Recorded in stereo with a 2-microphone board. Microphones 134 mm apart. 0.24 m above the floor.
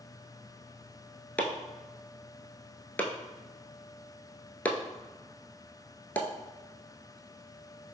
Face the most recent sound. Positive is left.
turn(degrees=10)  # may be behind; listen again after turning